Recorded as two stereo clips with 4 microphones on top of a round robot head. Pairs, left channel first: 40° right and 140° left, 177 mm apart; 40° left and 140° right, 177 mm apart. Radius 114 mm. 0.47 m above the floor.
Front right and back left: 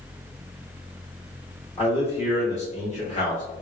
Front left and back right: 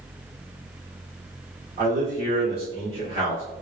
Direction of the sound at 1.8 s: 105° right.